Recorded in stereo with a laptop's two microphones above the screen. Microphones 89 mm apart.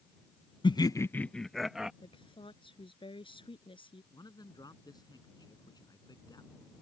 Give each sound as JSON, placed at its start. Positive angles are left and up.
{"t": 0.6, "sound": "laughter", "side_deg": 65}
{"t": 2.0, "sound": "a woman speaking", "side_deg": 75}
{"t": 4.1, "sound": "a man speaking", "side_deg": 50}